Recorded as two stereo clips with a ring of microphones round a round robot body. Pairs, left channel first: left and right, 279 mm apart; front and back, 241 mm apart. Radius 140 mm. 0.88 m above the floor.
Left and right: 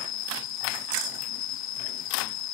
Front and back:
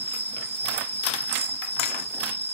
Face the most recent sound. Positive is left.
turn(degrees=120)